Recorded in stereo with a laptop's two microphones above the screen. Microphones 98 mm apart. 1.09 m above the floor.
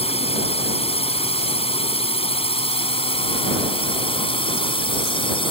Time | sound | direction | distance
0.0 | a drone | 85° left | ?